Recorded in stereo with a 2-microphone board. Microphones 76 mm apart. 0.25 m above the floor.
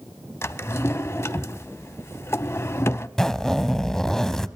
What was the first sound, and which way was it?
A drawer, 40° left (ahead or behind).